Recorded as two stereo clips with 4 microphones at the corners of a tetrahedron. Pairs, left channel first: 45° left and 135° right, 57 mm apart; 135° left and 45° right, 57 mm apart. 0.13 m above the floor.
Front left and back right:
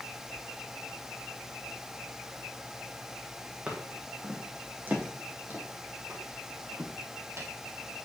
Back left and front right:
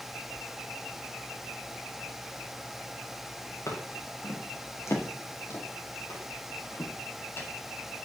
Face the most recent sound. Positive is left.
turn(degrees=-175)